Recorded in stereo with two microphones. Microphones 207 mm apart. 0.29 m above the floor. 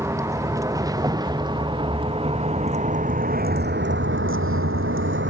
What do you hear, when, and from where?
0.0 s a vehicle: 15° right (ahead or behind); by 5.3 s 65° right (ahead or behind)